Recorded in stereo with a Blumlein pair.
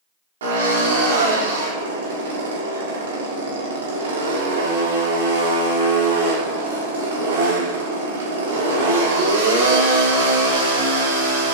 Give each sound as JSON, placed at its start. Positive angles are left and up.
{"t": 0.4, "sound": "a drill", "azimuth_deg": -60, "distance_m": 5.0}